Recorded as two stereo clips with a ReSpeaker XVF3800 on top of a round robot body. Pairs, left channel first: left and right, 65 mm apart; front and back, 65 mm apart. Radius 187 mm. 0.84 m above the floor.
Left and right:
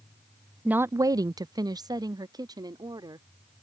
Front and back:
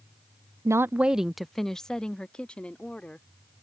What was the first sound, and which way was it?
A woman speaking, 160° right.